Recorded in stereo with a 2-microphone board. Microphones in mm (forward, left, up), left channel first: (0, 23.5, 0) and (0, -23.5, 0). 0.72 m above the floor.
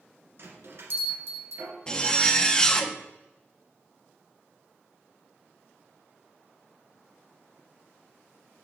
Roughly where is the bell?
Right.